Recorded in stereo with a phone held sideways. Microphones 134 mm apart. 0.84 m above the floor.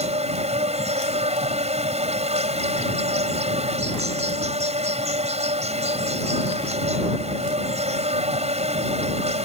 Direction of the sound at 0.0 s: 55° right (ahead or behind).